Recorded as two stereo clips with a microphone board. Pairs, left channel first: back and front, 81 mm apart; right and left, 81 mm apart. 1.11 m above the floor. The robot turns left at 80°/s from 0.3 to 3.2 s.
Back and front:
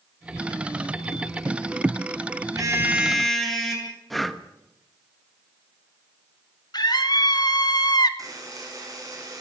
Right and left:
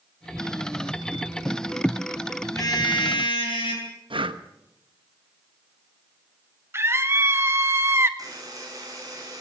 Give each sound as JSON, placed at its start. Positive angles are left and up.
{"t": 2.5, "sound": "a car horn", "azimuth_deg": -40, "distance_m": 7.0}
{"t": 4.1, "sound": "breathing", "azimuth_deg": 90, "distance_m": 1.2}
{"t": 6.7, "sound": "a scream", "azimuth_deg": 145, "distance_m": 1.9}
{"t": 8.2, "sound": "a buzzer", "azimuth_deg": 45, "distance_m": 9.0}